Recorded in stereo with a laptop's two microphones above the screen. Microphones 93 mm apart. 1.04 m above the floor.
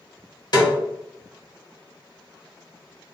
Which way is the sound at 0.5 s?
50° left (ahead or behind).